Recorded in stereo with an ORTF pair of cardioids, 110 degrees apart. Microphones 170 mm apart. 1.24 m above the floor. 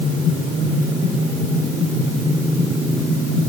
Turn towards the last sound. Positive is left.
No sound to turn to.